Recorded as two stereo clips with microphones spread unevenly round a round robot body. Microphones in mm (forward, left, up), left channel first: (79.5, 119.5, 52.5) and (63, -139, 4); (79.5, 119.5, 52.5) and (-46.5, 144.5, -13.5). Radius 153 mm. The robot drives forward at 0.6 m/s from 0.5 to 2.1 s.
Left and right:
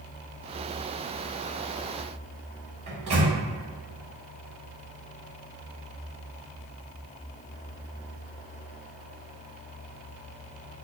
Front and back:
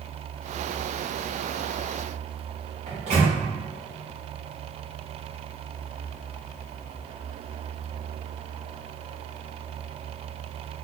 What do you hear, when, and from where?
2.9 s a microwave: 160° right, 1.4 m